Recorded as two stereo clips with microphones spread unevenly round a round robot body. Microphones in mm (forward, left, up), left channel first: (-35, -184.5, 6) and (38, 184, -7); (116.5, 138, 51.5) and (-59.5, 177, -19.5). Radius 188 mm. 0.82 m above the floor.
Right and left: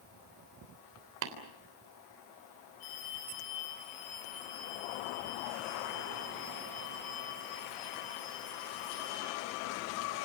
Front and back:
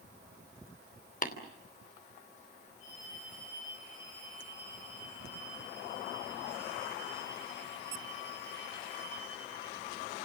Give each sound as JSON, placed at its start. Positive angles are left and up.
{"t": 1.2, "sound": "tapping", "azimuth_deg": 30, "distance_m": 3.5}
{"t": 2.8, "sound": "a phone ringing", "azimuth_deg": -70, "distance_m": 9.0}